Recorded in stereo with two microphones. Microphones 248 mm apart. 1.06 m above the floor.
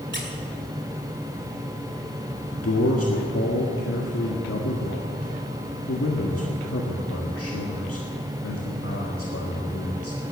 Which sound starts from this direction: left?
A man speaking, at 2.5 s.